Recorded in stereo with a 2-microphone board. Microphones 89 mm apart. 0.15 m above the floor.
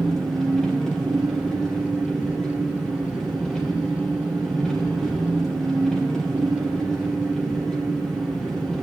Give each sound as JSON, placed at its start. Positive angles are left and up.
{"t": 0.0, "sound": "an engine running", "side_deg": 5, "distance_m": 3.0}